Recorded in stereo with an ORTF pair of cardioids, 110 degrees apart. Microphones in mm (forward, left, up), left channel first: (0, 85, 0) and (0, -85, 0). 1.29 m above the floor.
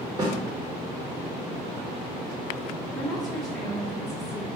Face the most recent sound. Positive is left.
turn(degrees=0)